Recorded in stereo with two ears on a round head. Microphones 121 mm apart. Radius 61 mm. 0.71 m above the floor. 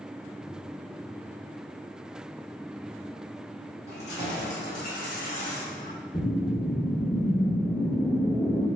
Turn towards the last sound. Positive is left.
turn(degrees=40)  # may be behind; listen again after turning